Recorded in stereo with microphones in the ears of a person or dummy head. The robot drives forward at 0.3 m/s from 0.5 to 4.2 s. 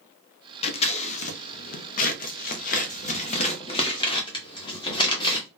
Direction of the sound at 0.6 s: 35° left (ahead or behind).